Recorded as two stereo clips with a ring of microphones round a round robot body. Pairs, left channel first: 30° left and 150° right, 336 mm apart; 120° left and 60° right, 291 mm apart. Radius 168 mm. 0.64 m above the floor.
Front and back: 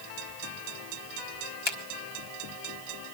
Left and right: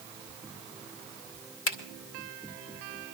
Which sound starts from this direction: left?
A finger snap, at 1.7 s.